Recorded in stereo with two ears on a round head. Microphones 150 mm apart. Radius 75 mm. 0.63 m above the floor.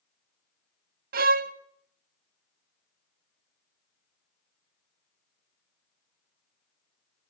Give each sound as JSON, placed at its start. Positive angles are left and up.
{"t": 1.1, "sound": "a violin", "side_deg": -55, "distance_m": 0.7}